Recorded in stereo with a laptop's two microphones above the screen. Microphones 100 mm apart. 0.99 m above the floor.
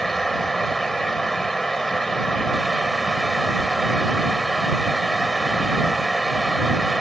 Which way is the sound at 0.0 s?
5° left (ahead or behind).